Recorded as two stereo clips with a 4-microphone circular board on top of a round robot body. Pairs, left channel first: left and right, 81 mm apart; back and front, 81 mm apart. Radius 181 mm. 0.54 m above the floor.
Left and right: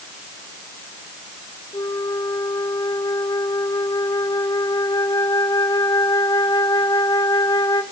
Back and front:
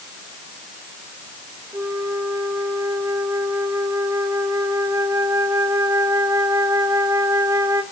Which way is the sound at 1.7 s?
50° left.